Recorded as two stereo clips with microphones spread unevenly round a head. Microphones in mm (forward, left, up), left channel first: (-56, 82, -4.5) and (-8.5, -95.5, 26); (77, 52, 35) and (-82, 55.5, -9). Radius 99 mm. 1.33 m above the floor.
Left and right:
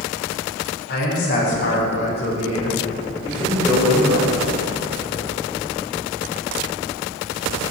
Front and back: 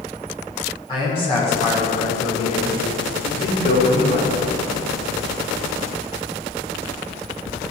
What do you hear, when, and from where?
0.9 s a man speaking: 60° left, 5.5 m; by 4.4 s 15° left, 5 m